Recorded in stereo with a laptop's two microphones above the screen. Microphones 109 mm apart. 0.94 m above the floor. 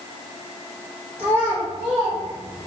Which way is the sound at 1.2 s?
50° right (ahead or behind).